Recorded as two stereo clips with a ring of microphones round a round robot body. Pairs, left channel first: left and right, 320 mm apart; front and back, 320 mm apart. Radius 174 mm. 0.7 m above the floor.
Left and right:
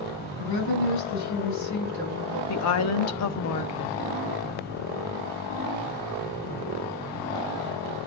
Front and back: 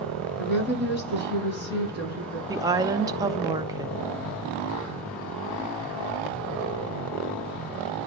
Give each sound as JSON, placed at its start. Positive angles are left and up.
{"t": 0.4, "sound": "a woman speaking", "azimuth_deg": 55, "distance_m": 5.5}
{"t": 2.5, "sound": "a woman speaking", "azimuth_deg": 105, "distance_m": 0.6}